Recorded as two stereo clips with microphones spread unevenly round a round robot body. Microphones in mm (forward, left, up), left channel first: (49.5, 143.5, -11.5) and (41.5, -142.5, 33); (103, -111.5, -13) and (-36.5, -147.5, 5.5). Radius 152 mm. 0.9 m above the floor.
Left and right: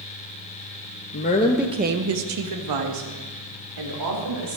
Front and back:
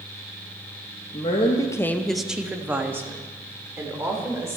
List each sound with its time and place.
1.1 s a woman speaking: 55° left, 1.1 m; by 4.6 s 95° right, 4.5 m